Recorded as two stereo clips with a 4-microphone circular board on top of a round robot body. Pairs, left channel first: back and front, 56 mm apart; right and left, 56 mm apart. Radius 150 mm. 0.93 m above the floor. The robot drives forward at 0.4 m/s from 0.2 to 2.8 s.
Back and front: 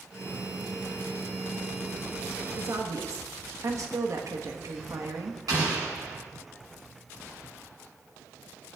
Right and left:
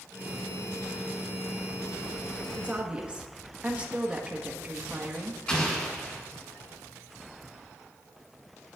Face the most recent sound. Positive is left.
turn(degrees=-20)